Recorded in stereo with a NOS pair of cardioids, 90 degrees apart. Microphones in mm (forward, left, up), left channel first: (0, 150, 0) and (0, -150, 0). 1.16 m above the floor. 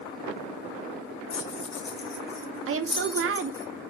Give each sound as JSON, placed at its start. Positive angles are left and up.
{"t": 1.3, "sound": "keys jangling", "azimuth_deg": 50, "distance_m": 2.0}
{"t": 2.7, "sound": "a woman speaking", "azimuth_deg": -45, "distance_m": 1.9}